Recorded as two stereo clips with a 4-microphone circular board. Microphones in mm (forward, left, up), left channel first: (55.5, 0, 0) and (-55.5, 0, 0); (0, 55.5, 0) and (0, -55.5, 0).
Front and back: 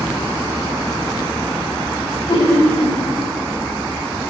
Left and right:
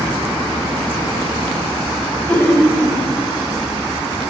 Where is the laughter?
20° left, 2 m.